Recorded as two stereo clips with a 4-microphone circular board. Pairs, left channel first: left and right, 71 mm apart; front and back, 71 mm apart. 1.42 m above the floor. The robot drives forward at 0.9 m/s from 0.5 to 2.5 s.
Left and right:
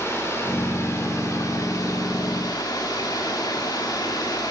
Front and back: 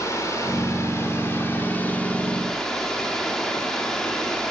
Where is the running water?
40° left, 3 m; by 4.5 s 80° left, 2.0 m.